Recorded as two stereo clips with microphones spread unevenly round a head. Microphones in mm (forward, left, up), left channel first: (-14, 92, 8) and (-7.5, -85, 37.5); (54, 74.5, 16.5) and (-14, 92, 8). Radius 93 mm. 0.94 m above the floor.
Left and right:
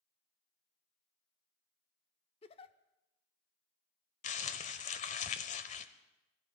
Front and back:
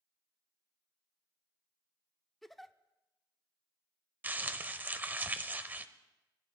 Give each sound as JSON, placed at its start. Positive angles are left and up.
{"t": 2.4, "sound": "a giggle", "azimuth_deg": 60, "distance_m": 0.5}
{"t": 4.2, "sound": "crumpling", "azimuth_deg": 115, "distance_m": 0.7}